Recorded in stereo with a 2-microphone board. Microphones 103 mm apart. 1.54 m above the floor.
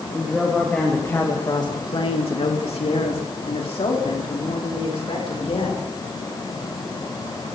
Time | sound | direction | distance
0.1 | a woman speaking | centre (ahead or behind) | 2.5 m